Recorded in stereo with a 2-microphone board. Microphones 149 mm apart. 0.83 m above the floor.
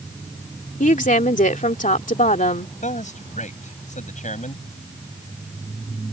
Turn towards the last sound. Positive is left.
turn(degrees=55)  # may be behind; listen again after turning